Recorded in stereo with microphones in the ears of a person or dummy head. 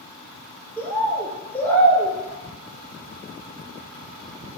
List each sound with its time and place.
0.8 s a bird: 5° left (ahead or behind), 1.6 m